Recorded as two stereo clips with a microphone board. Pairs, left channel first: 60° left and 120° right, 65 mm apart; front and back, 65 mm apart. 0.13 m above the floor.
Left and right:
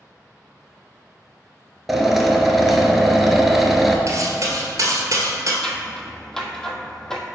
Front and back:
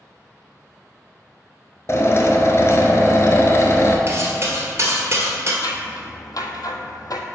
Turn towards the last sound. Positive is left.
turn(degrees=-20)